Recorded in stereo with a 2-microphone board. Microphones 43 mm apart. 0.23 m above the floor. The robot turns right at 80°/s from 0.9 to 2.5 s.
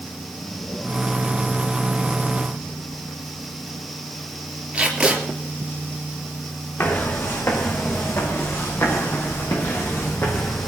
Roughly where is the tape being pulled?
Centre.